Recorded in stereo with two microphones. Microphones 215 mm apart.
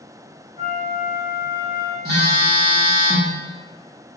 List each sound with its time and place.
0.6 s a flute: 25° right (ahead or behind), 1.2 m
2.0 s a phone buzzing: 50° right (ahead or behind), 0.9 m